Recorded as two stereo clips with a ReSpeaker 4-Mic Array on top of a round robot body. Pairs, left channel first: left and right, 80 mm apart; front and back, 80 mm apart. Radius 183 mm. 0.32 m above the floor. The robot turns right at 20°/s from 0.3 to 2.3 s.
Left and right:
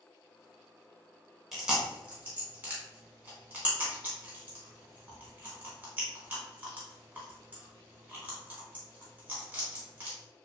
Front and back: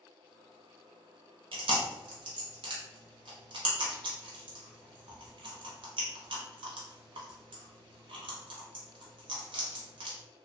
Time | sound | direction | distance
1.5 | chewing | straight behind | 0.6 m